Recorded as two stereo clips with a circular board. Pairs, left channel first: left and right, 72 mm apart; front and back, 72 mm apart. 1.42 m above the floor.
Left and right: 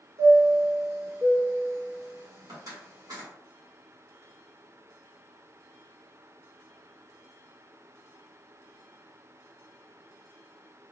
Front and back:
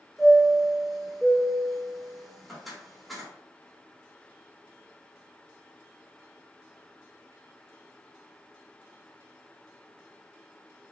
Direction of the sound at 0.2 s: 90° right.